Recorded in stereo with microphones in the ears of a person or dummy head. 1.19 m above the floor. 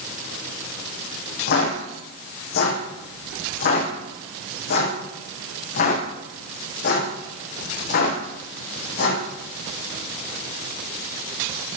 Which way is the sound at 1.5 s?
60° left (ahead or behind).